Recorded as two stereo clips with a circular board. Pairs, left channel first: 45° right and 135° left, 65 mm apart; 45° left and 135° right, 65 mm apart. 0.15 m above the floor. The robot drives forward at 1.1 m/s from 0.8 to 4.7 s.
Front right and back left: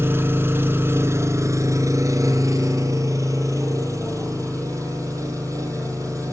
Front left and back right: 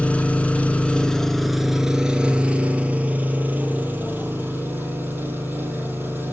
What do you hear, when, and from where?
0.0 s an engine running: 105° left, 1.6 m; by 6.3 s 165° left, 5 m